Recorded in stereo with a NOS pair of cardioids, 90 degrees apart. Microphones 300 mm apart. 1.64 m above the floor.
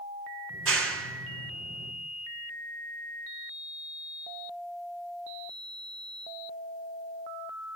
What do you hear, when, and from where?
0.5 s a clap: 50° right, 3 m